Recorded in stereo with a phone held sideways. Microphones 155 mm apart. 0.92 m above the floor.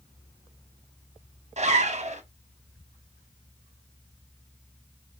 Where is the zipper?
45° right (ahead or behind), 0.6 m.